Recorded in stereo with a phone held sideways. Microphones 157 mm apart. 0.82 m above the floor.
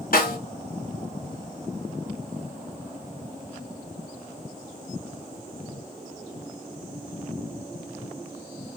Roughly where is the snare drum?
Left.